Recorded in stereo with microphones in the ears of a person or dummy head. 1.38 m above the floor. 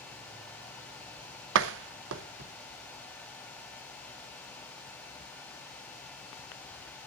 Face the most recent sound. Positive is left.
turn(degrees=-65)  # may be behind; listen again after turning